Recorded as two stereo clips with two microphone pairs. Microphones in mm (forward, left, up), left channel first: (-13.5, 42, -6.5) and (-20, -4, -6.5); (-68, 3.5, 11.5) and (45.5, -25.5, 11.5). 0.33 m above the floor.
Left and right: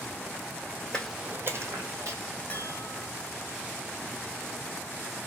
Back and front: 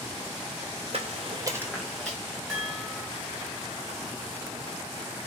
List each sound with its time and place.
0.9 s footsteps: 10° left, 0.6 m; by 2.2 s 110° right, 1.2 m
2.5 s a chime: 80° left, 1.4 m